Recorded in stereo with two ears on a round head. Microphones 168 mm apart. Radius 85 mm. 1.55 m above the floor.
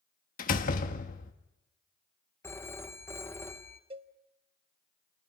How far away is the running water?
No running water in this recording.